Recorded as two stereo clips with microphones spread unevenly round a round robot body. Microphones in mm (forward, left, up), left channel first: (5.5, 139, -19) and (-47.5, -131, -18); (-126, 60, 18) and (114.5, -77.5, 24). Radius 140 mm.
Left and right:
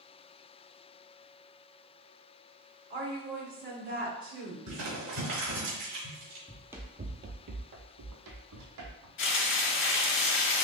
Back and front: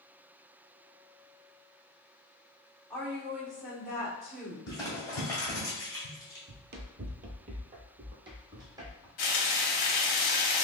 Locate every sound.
2.9 s a woman speaking: 120° right, 1.8 m
4.7 s crumpling: 130° right, 1.7 m
6.5 s running footsteps: 5° right, 0.6 m; by 9.1 s 105° right, 1.4 m
9.2 s frying: 120° left, 1.0 m